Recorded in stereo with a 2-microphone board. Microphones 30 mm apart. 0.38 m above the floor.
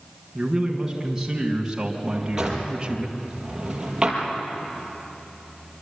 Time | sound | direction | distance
0.3 | a man speaking | 10° right (ahead or behind) | 5 m
2.1 | a drawer | 20° right (ahead or behind) | 5.5 m